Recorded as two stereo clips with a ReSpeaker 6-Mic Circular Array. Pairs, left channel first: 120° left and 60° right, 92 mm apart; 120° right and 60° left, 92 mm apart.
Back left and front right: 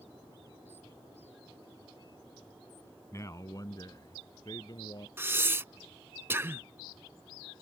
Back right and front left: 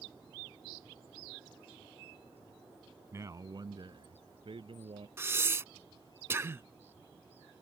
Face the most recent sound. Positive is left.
turn(degrees=0)